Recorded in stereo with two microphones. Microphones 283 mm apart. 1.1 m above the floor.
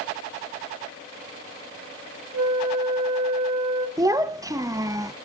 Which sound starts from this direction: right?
A flute, at 2.3 s.